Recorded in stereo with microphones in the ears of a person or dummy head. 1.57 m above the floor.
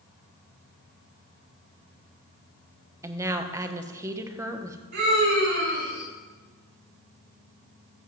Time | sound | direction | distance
3.0 | a woman speaking | 20° right (ahead or behind) | 1.1 m
4.9 | a scream | 50° right (ahead or behind) | 3 m